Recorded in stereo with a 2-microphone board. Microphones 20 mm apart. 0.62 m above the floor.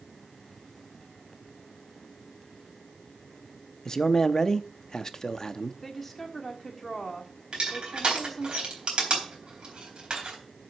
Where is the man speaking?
25° left (ahead or behind), 0.6 m.